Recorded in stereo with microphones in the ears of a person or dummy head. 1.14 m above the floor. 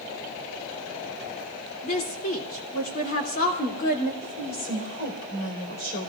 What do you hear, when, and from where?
1.8 s a woman speaking: 45° left (ahead or behind), 3 m
4.2 s a woman speaking: 50° left (ahead or behind), 4.5 m